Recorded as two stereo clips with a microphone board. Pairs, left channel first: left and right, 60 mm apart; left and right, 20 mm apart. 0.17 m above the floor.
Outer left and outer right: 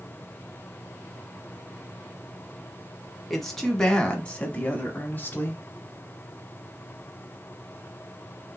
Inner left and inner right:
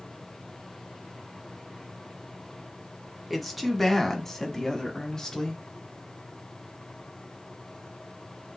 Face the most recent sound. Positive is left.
turn(degrees=35)  # may be behind; listen again after turning